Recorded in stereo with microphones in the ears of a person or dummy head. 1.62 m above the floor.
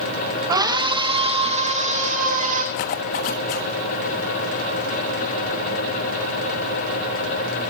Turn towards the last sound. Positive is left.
turn(degrees=50)  # may be behind; listen again after turning